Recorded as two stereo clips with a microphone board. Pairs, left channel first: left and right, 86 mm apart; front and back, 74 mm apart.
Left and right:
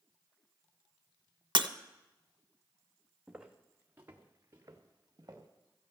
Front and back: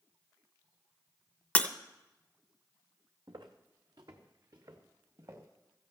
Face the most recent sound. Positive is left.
turn(degrees=-135)